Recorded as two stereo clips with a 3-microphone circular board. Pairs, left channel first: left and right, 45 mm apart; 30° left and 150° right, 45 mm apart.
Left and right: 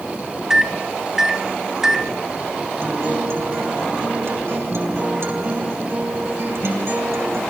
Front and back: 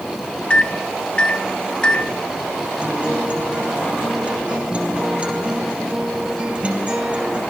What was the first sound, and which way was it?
A microwave, 15° right.